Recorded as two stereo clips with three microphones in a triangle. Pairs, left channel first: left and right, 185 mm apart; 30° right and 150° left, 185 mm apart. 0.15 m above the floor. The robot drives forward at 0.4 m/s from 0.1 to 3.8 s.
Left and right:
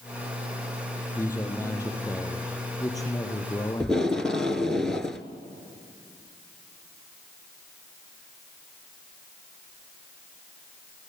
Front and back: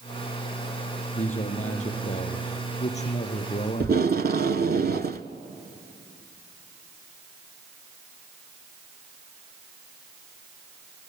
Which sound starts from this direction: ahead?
A man speaking, at 1.1 s.